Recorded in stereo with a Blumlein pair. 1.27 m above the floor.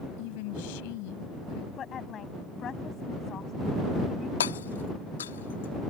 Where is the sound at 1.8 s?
25° left.